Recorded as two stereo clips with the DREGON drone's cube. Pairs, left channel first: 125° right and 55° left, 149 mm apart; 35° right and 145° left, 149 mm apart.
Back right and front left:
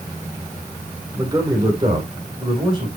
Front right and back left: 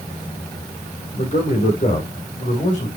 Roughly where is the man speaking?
Ahead.